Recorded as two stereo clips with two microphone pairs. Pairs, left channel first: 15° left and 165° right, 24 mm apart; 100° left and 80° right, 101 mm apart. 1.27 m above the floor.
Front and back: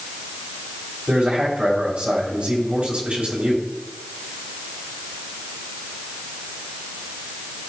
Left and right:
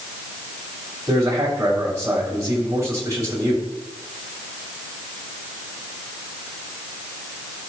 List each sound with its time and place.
1.1 s a man speaking: 140° right, 3 m